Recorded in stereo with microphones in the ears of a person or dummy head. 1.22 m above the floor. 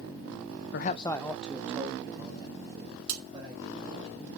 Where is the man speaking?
65° left (ahead or behind), 0.5 m; by 4.1 s 25° right (ahead or behind), 5 m.